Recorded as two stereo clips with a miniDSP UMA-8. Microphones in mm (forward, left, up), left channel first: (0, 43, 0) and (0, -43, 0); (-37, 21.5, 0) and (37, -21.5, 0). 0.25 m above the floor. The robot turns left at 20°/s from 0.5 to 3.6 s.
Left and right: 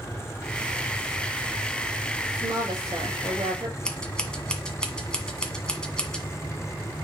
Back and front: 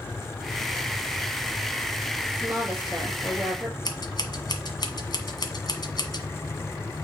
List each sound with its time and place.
2.3 s a woman speaking: 95° right, 6 m; by 3.8 s 120° right, 6 m
3.9 s scissors: 170° left, 1.4 m